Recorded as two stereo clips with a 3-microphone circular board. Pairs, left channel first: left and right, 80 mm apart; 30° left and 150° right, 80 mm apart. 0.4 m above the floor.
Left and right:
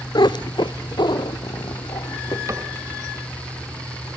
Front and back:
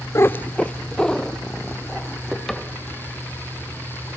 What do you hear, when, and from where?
0.1 s a cat meowing: 80° left, 0.5 m; by 2.4 s 115° left, 3.5 m
2.5 s a cupboard door: 55° right, 2 m